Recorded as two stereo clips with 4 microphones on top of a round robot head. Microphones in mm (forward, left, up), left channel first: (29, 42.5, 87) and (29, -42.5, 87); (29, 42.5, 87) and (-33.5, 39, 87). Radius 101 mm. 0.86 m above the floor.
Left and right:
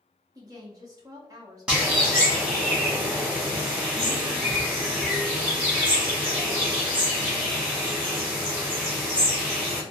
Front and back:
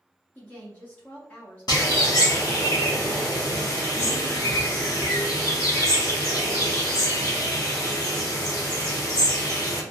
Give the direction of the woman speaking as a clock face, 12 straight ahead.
2 o'clock.